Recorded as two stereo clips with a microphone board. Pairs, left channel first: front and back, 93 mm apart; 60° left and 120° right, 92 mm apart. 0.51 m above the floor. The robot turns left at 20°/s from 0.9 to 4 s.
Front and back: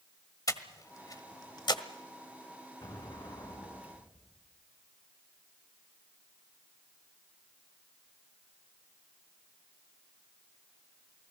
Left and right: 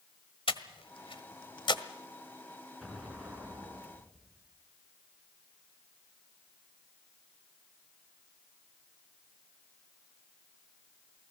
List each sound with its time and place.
0.5 s breathing: 50° left, 1.4 m; by 1.8 s 30° left, 1.4 m
2.8 s an explosion: 30° right, 5 m; by 4.4 s 55° right, 5 m